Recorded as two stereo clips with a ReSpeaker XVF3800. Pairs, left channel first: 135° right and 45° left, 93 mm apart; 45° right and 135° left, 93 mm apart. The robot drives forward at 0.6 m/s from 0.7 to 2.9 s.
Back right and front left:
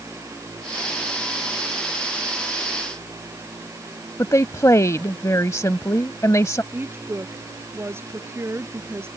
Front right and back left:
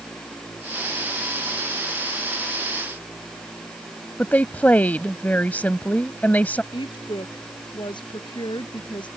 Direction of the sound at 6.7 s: 15° right.